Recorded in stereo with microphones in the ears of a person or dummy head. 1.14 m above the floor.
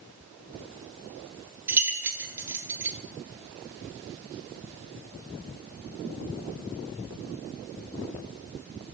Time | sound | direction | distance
1.7 | keys jangling | 15° right (ahead or behind) | 1.0 m